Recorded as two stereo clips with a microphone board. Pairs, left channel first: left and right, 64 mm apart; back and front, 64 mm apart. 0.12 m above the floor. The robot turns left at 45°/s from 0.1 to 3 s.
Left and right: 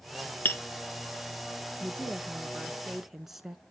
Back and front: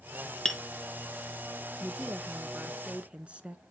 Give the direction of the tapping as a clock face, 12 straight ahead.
8 o'clock.